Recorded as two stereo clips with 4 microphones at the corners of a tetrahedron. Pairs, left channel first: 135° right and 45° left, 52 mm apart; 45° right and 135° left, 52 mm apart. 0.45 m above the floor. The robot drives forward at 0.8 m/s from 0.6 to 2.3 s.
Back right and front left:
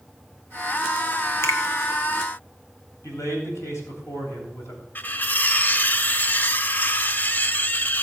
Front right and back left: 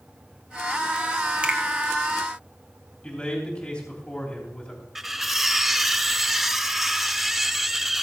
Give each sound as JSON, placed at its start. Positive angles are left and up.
{"t": 1.4, "sound": "a finger snap", "azimuth_deg": -160, "distance_m": 1.4}
{"t": 3.0, "sound": "a man speaking", "azimuth_deg": -115, "distance_m": 3.0}
{"t": 5.0, "sound": "cutlery clinking", "azimuth_deg": -145, "distance_m": 0.6}